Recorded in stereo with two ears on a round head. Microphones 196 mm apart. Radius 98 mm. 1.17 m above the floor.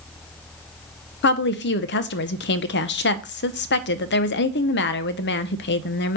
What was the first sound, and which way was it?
A woman speaking, 50° left (ahead or behind).